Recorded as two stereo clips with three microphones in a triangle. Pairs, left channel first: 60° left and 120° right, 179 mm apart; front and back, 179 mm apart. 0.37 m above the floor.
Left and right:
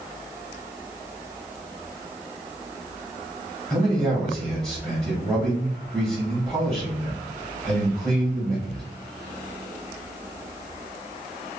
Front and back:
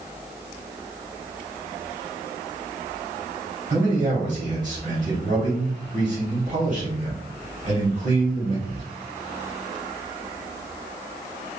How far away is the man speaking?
About 1.8 m.